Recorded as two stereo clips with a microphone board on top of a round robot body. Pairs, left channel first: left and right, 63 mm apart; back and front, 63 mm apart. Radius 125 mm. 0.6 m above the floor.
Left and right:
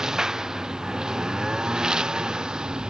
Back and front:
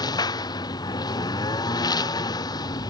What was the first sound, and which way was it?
A lawn mower, 170° right.